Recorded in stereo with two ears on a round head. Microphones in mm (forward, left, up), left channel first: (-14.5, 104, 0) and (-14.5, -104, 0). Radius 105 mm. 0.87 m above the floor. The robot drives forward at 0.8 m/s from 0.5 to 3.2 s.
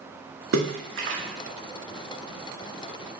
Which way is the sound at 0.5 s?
65° right (ahead or behind).